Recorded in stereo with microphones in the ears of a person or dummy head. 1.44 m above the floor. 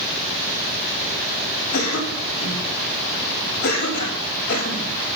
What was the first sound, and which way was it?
A cough, 70° left (ahead or behind).